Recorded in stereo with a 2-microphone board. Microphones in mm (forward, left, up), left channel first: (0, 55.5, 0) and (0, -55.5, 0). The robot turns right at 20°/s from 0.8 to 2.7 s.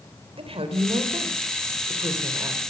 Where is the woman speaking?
65° right, 3.5 m; by 2.6 s 25° right, 3.5 m.